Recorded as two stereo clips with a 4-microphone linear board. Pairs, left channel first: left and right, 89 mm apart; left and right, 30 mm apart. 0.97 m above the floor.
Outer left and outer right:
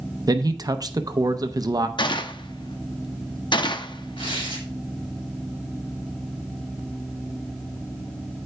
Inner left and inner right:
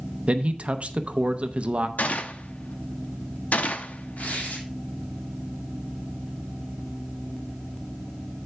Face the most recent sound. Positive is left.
turn(degrees=80)